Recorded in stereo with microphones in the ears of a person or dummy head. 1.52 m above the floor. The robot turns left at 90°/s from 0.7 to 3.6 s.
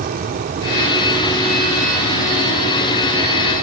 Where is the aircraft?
135° right; by 3.6 s 35° right.